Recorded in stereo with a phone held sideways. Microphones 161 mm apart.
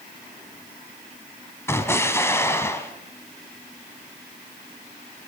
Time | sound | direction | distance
1.7 | an explosion | 15° left (ahead or behind) | 1.8 m